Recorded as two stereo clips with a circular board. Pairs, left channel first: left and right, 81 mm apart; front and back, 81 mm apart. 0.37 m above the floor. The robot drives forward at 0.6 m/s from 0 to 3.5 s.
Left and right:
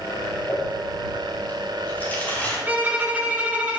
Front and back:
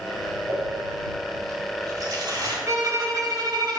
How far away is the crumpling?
About 2.5 m.